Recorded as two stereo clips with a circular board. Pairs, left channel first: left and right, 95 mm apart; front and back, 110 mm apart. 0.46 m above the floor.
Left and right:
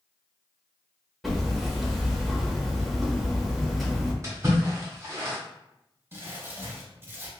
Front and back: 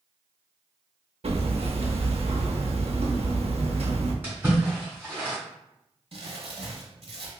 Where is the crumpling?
155° right, 0.8 m.